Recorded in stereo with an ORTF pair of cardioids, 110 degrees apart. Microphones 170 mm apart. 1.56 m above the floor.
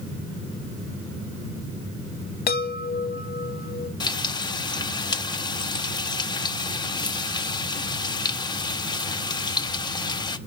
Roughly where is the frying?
Ahead left.